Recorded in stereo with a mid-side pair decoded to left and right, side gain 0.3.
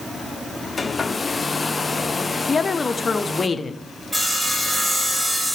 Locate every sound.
0.8 s a hair dryer: 40° left, 1.0 m
2.5 s a woman speaking: 45° left, 0.9 m
4.1 s sawing: 20° right, 5.5 m